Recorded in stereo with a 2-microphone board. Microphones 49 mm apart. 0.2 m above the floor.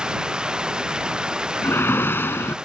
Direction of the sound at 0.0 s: 20° right (ahead or behind).